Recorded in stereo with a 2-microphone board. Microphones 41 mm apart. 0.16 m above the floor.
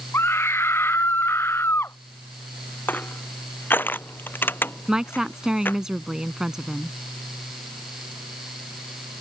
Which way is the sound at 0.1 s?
80° left.